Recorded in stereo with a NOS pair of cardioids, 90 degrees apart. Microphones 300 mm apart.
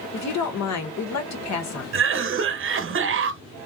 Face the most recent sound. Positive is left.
turn(degrees=-45)